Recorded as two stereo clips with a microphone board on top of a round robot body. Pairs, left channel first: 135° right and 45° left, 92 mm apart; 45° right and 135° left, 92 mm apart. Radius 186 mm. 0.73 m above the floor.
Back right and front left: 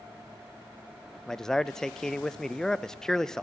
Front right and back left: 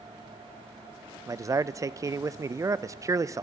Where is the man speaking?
145° left, 0.6 m.